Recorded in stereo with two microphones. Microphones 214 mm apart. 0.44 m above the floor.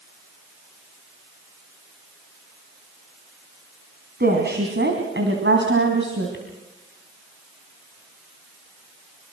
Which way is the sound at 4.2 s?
50° right (ahead or behind).